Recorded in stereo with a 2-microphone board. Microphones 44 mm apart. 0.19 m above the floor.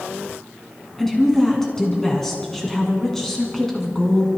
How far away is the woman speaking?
About 2 m.